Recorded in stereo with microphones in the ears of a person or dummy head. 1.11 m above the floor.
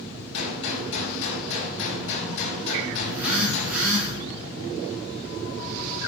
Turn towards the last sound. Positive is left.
turn(degrees=-5)  # may be behind; listen again after turning